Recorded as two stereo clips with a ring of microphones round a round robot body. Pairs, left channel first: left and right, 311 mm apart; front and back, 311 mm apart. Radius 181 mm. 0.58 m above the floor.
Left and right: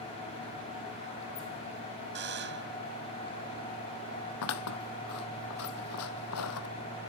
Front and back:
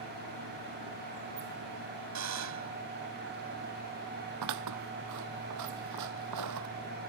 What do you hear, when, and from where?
2.1 s a buzzer: 150° right
4.4 s scissors: 140° left